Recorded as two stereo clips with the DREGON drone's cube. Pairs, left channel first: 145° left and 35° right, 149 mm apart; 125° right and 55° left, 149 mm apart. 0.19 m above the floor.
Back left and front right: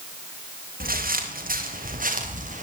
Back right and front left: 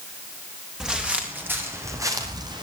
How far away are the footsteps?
About 4.5 m.